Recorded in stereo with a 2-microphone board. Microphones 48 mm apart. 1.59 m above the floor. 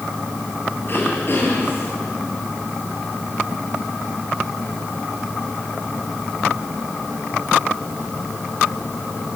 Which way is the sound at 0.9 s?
45° left (ahead or behind).